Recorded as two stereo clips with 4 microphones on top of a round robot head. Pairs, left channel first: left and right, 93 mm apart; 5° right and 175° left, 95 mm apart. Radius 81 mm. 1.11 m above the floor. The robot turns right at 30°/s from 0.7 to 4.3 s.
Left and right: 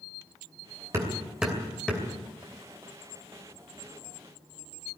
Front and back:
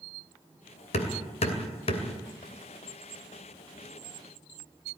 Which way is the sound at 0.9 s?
20° right.